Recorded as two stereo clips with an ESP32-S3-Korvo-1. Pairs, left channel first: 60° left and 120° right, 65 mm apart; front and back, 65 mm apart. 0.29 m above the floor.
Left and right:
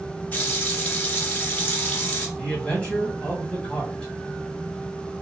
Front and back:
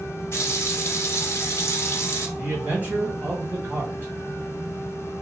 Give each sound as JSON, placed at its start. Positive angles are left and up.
{"t": 0.3, "sound": "a running tap", "azimuth_deg": 15, "distance_m": 1.1}
{"t": 2.4, "sound": "a man speaking", "azimuth_deg": 130, "distance_m": 1.8}